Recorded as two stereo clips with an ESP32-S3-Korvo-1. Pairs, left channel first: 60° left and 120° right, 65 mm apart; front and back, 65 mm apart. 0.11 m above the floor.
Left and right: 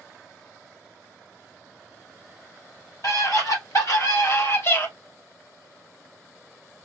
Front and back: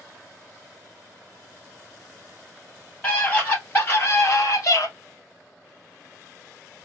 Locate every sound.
3.0 s a scream: 65° left, 2.5 m; by 4.9 s 20° left, 2.5 m